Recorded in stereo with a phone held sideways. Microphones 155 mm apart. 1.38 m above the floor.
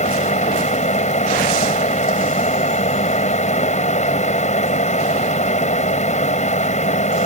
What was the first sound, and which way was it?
A fan, 50° left (ahead or behind).